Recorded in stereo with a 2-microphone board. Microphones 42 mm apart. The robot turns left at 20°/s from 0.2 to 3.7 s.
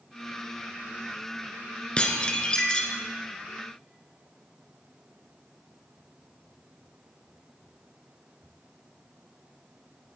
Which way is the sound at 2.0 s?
25° left (ahead or behind).